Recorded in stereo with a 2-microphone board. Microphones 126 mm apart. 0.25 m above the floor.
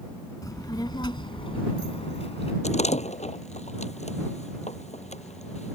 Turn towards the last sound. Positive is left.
turn(degrees=70)  # may be behind; listen again after turning